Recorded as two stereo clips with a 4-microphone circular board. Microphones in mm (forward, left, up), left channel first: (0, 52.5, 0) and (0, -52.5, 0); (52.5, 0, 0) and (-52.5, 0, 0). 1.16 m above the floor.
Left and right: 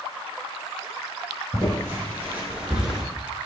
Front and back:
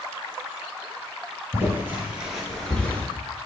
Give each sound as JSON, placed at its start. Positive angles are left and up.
{"t": 1.5, "sound": "footsteps", "azimuth_deg": -135, "distance_m": 1.4}